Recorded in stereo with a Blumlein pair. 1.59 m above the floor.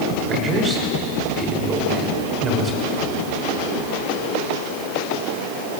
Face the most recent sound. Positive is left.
turn(degrees=-20)